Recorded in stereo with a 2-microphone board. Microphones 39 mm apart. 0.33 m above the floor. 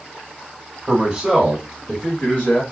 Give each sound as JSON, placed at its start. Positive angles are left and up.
{"t": 0.9, "sound": "a man speaking", "side_deg": -15, "distance_m": 1.5}